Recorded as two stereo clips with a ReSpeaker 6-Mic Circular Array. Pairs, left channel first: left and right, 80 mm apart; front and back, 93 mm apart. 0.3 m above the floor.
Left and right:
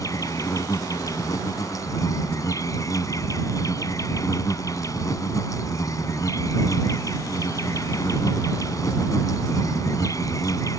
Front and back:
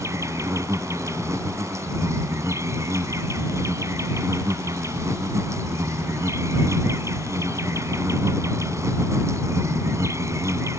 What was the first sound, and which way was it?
An insect, 130° left.